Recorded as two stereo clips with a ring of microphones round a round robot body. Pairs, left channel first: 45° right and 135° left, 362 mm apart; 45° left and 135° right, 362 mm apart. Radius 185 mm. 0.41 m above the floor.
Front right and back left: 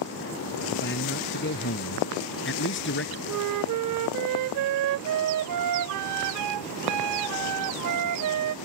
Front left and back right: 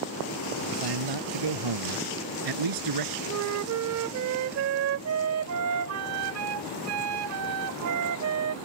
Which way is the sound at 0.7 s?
105° right.